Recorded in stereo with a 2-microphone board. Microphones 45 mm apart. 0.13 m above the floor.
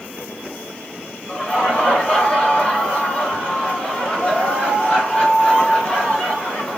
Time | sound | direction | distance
1.3 | laughter | 25° left (ahead or behind) | 1.2 m